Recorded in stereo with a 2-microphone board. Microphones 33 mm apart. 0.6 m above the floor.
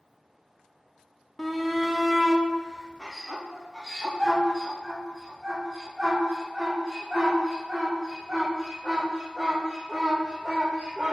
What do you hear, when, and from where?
1.4 s a shout: 10° left (ahead or behind), 0.9 m; by 11.1 s 15° right (ahead or behind), 5.5 m